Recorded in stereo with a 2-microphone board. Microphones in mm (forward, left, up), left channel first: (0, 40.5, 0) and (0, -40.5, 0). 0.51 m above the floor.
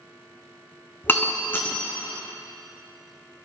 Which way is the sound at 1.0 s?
25° left (ahead or behind).